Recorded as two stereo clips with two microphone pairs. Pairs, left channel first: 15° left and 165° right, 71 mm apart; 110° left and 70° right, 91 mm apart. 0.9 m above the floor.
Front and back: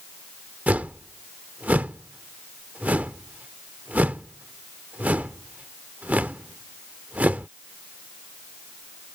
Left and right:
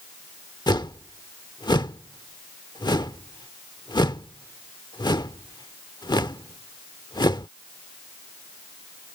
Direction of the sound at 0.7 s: 130° left.